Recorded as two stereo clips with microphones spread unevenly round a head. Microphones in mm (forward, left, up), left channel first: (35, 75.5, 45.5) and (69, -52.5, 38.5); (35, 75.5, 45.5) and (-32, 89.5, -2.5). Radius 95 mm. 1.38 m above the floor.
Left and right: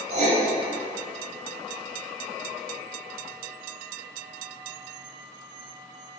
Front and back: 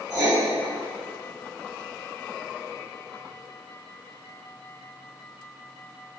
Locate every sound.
0.1 s writing: 120° right, 0.8 m